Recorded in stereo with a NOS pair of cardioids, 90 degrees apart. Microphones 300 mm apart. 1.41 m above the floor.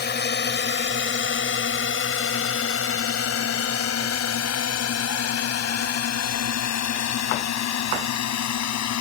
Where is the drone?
35° left; by 9.0 s 65° left.